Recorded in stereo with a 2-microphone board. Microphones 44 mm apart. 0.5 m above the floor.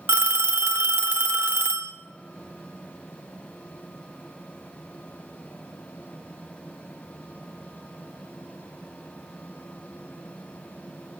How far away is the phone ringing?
About 0.6 m.